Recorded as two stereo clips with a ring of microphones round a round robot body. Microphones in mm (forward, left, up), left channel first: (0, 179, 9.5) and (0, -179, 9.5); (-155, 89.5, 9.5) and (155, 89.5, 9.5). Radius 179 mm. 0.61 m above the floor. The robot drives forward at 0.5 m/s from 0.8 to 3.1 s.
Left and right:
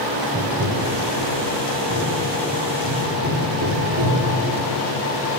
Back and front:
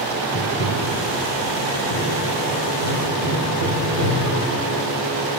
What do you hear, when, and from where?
0.3 s tapping: 140° right, 1.7 m; by 4.5 s 155° right, 2.5 m